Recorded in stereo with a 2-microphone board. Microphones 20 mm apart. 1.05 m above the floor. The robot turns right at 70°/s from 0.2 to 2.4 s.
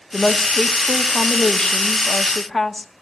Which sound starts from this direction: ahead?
A woman speaking, at 0.1 s.